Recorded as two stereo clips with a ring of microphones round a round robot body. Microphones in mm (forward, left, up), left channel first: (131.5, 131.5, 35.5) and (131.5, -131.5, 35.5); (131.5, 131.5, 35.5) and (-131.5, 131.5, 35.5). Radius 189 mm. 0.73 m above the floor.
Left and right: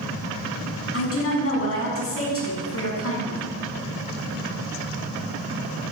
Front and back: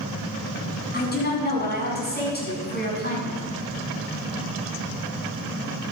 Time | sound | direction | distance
0.9 | a woman speaking | 55° left | 7 m